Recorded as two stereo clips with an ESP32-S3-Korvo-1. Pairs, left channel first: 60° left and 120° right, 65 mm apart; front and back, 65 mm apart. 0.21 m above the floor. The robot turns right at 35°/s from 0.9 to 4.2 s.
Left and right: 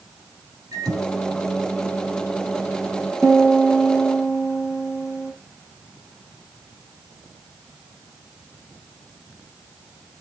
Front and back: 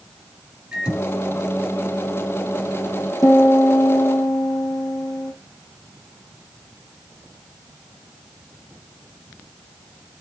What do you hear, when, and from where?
0.7 s a microwave: 105° right, 5 m; by 3.1 s 30° right, 5 m
3.2 s a piano: 25° right, 4.5 m; by 5.3 s 10° left, 4.5 m